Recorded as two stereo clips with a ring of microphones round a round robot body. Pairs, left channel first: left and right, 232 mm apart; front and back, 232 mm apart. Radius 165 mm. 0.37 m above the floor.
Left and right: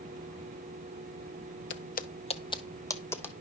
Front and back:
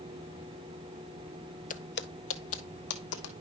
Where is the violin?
I don't hear a violin.